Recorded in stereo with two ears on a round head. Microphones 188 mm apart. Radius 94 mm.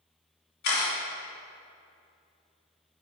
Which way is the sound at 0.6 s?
55° left (ahead or behind).